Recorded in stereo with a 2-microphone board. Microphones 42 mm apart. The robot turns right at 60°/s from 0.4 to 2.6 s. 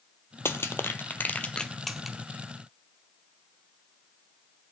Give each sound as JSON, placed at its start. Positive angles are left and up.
{"t": 0.5, "sound": "crushing", "side_deg": 75, "distance_m": 0.6}